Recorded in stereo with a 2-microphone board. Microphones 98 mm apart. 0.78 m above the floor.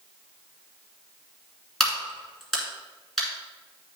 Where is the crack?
5° left (ahead or behind), 2.0 m.